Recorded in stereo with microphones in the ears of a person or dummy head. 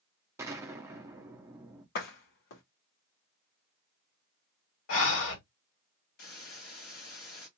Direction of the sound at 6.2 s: 50° left (ahead or behind).